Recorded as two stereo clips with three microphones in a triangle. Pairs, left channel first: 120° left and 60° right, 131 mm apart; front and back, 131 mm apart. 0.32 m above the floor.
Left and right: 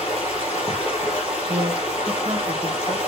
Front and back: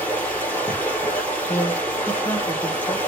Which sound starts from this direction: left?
Running water, at 0.0 s.